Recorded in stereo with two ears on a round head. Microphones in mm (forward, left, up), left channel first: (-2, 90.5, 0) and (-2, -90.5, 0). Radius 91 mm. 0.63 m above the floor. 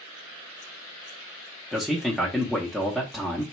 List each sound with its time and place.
1.7 s a man speaking: centre (ahead or behind), 0.8 m